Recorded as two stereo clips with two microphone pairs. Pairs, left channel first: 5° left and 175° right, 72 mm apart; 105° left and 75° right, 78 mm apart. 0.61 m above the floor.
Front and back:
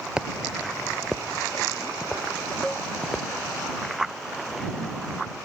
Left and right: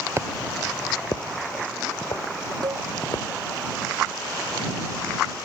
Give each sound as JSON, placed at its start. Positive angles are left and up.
{"t": 0.2, "sound": "footsteps", "azimuth_deg": -105}
{"t": 2.6, "sound": "a cowbell", "azimuth_deg": -80}